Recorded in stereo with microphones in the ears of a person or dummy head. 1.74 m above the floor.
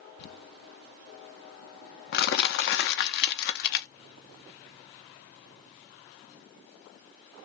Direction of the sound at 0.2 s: 55° left (ahead or behind).